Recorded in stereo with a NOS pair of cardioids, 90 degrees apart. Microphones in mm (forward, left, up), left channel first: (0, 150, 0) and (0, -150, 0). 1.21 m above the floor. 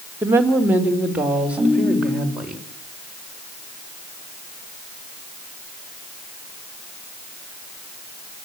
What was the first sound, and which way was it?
A woman speaking, 5° right.